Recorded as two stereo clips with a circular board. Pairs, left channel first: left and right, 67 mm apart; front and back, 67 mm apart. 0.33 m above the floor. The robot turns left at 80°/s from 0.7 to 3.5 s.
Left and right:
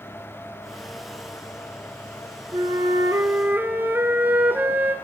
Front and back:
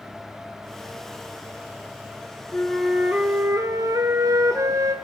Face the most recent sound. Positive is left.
turn(degrees=-150)